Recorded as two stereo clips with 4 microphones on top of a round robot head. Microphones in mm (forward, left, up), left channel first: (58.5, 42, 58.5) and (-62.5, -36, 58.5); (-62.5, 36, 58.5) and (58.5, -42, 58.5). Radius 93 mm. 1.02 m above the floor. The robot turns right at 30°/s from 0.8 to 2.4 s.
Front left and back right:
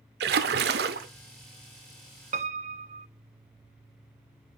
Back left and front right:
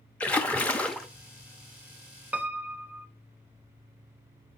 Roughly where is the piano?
Behind right.